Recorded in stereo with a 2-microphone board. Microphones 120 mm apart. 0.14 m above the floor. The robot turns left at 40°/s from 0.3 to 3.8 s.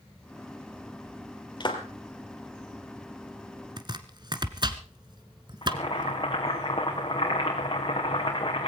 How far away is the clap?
About 2.5 m.